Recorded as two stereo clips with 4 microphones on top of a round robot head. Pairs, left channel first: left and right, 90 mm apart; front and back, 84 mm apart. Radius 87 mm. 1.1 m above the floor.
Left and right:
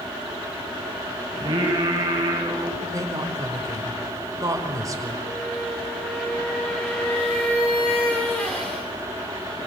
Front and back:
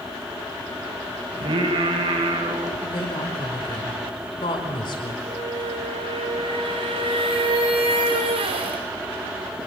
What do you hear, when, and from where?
1.3 s singing: 145° right, 6.5 m
2.8 s a woman speaking: 35° right, 5 m
5.3 s a squeak: 170° left, 4 m